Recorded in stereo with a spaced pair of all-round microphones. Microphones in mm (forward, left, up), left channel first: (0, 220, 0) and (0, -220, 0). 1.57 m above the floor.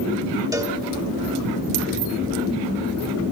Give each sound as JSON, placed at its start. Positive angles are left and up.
{"t": 0.5, "sound": "a cowbell", "side_deg": -10, "distance_m": 1.3}